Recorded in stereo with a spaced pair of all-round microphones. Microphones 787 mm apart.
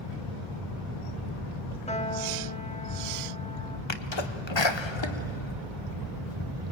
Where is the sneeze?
35° left (ahead or behind), 1.2 m.